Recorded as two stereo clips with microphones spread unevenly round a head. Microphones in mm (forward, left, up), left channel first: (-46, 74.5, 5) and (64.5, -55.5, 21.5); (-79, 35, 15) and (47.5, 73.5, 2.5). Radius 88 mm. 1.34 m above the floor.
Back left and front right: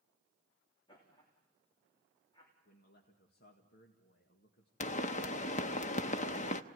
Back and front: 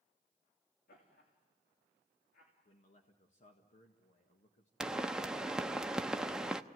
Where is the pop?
105° left, 0.8 m.